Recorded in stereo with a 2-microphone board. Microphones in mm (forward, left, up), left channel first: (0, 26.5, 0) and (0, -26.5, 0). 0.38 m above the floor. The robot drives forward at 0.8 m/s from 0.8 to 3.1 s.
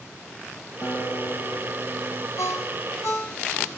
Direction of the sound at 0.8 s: 50° left (ahead or behind).